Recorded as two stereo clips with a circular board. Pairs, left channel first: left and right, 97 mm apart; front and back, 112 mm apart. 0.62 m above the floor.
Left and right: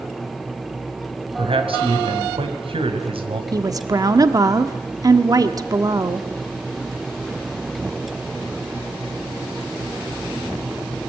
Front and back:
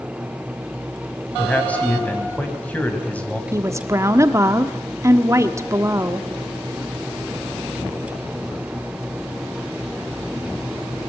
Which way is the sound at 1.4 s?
75° right.